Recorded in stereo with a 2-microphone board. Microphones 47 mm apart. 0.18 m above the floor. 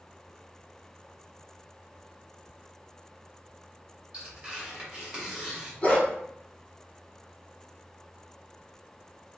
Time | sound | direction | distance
4.1 | tearing paper | 25° right (ahead or behind) | 2.0 m
5.8 | a dog barking | 40° left (ahead or behind) | 1.9 m